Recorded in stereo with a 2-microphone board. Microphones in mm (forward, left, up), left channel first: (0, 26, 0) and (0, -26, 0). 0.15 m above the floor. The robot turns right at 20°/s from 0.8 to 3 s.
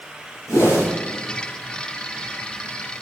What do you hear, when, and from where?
0.5 s a whoosh: 70° left (ahead or behind), 4.5 m